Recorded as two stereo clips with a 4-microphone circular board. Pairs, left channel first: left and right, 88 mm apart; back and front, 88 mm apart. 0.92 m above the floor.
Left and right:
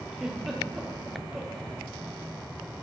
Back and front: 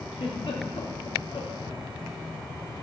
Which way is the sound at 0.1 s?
175° right.